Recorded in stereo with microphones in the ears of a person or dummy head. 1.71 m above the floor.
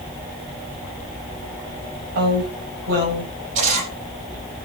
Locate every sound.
2.1 s a woman speaking: 55° right (ahead or behind), 8.5 m
3.5 s a camera shutter: 40° right (ahead or behind), 8 m